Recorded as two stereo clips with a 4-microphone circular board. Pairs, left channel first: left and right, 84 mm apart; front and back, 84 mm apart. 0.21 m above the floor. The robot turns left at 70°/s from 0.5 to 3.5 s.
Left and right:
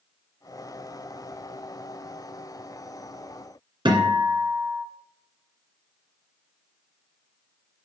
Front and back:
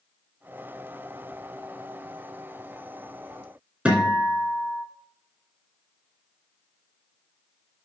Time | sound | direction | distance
3.9 | a guitar | 105° right | 2 m